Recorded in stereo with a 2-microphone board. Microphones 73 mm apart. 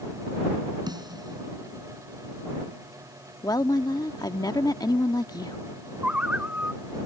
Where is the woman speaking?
60° left (ahead or behind).